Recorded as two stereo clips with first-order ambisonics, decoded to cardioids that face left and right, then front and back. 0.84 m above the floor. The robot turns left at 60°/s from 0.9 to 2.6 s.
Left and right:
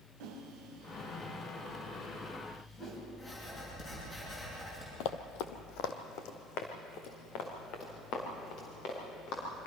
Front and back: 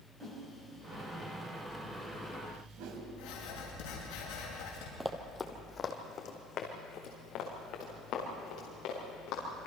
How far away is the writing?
About 8 m.